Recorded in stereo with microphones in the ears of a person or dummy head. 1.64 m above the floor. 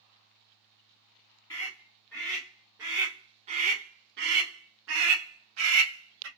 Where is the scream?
15° left (ahead or behind), 1.4 m; by 6.3 s 80° right, 1.8 m.